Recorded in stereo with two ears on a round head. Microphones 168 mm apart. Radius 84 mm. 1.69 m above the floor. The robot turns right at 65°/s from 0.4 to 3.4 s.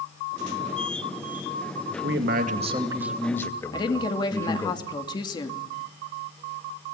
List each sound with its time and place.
1.9 s a man speaking: 85° right, 2.5 m; by 4.7 s 15° left, 2.5 m
3.7 s a woman speaking: 25° left (ahead or behind), 2.5 m